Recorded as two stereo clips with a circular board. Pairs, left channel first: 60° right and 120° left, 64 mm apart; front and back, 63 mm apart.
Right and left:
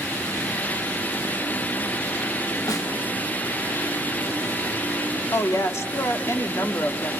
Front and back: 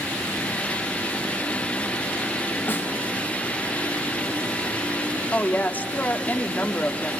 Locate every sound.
2.7 s a snare drum: 55° right, 3.5 m
5.3 s a woman speaking: 50° right, 1.7 m